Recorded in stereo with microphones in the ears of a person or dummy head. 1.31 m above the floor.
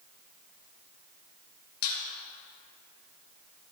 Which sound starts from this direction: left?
A squeak, at 1.8 s.